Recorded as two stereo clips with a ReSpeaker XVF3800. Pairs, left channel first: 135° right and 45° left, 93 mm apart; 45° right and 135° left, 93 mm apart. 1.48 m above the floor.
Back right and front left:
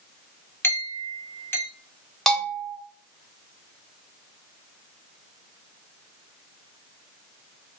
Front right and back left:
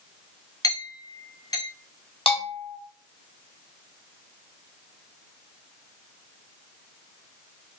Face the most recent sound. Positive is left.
turn(degrees=-50)